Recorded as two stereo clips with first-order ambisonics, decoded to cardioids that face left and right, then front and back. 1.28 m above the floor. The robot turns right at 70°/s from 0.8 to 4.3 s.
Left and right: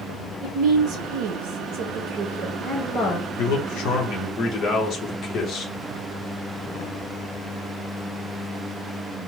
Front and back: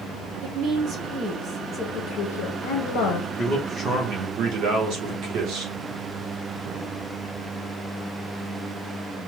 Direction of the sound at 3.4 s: 85° left.